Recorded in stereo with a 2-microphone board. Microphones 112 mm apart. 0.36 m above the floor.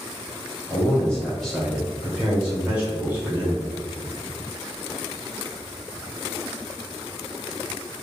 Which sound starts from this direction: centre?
A man speaking, at 0.7 s.